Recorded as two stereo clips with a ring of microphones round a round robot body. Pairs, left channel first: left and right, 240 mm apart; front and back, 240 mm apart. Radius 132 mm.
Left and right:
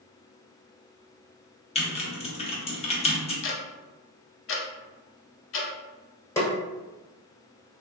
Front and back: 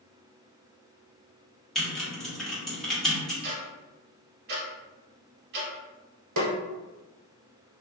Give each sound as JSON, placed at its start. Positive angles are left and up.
{"t": 1.8, "sound": "typing on a keyboard", "azimuth_deg": 85, "distance_m": 0.7}
{"t": 3.4, "sound": "ticking", "azimuth_deg": 125, "distance_m": 0.6}
{"t": 6.4, "sound": "a snare drum", "azimuth_deg": 170, "distance_m": 0.8}